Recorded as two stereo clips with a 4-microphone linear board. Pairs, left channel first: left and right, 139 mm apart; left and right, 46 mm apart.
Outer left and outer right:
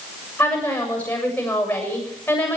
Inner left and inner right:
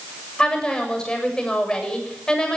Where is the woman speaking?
10° left (ahead or behind), 7 m.